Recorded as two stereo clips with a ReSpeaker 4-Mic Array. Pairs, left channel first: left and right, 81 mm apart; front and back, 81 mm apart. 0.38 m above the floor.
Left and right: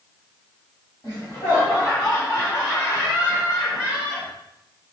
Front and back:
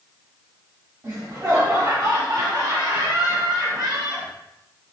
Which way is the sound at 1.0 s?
140° left.